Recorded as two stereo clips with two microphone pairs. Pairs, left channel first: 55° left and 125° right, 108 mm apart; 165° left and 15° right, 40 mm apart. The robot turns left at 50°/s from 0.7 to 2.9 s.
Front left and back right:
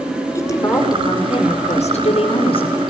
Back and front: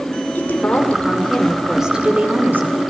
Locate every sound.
0.3 s a woman speaking: 115° left, 5.5 m; by 2.8 s 10° left, 5.5 m